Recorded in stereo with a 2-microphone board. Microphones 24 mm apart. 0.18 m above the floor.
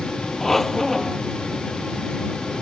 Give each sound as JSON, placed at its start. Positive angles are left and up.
{"t": 0.4, "sound": "a squeak", "side_deg": 15}